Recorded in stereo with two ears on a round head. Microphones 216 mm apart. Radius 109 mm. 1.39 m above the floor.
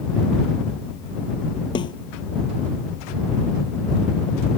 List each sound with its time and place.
1.8 s a snare drum: 20° left (ahead or behind)